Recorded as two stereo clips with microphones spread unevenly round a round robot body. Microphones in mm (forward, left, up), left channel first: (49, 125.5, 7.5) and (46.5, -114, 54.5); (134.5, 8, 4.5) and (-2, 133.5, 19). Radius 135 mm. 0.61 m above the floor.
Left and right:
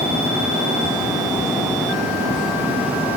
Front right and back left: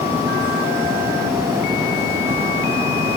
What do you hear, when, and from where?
Only background noise.